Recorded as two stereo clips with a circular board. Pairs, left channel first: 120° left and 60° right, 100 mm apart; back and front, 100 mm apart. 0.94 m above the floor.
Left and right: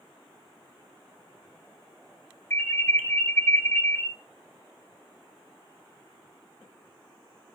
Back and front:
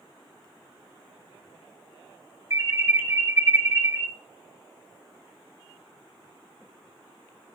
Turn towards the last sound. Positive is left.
turn(degrees=55)